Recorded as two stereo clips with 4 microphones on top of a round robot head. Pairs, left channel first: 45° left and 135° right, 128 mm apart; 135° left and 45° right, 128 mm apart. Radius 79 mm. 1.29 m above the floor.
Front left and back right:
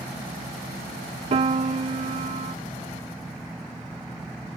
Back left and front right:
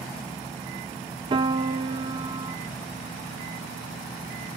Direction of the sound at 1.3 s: 95° right.